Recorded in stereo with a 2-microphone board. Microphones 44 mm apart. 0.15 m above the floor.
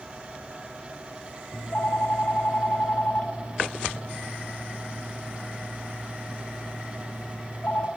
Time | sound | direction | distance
1.5 | a phone ringing | 40° left (ahead or behind) | 1.1 m